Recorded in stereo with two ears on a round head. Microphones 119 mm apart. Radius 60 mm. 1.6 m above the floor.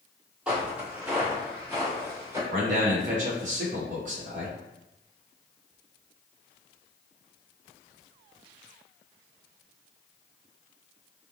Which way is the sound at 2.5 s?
60° right (ahead or behind).